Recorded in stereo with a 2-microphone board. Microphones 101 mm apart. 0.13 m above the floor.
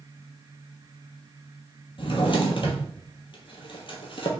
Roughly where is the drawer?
Left.